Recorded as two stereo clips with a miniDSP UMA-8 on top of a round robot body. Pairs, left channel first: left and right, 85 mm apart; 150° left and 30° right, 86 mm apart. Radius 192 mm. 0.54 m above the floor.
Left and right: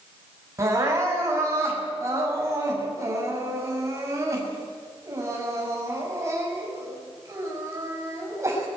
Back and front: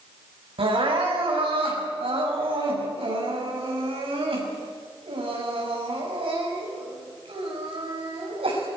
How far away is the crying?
About 6 m.